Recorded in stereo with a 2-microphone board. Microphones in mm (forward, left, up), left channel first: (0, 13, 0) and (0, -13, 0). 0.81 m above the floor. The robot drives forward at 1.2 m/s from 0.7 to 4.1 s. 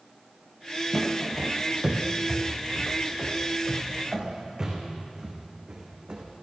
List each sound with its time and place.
0.9 s footsteps: centre (ahead or behind), 1.4 m; by 6.2 s 40° right (ahead or behind), 3.5 m